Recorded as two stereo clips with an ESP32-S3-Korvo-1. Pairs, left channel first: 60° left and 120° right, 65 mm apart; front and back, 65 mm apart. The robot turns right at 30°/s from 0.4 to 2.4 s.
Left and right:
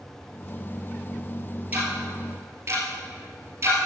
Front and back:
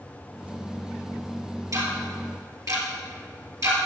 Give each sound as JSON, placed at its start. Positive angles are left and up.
{"t": 1.7, "sound": "ticking", "azimuth_deg": 180, "distance_m": 2.5}